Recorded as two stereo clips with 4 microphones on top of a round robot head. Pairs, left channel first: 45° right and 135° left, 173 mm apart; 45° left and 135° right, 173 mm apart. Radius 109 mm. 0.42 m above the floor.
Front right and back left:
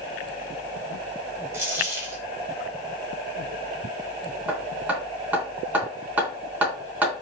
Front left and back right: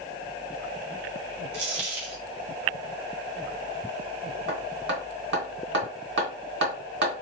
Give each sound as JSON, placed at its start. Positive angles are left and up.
{"t": 1.5, "sound": "a dropped coin", "azimuth_deg": -150, "distance_m": 2.5}
{"t": 4.5, "sound": "hammering", "azimuth_deg": -145, "distance_m": 3.5}